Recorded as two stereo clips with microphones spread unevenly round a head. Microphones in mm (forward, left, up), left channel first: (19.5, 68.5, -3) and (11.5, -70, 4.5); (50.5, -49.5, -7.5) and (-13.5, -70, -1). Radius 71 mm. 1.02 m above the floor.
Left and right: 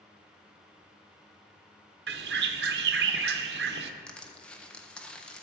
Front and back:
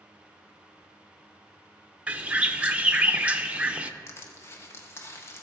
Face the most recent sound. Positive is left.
turn(degrees=10)